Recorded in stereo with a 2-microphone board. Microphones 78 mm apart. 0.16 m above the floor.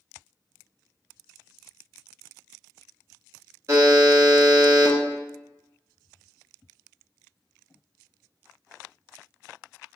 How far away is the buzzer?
About 0.9 m.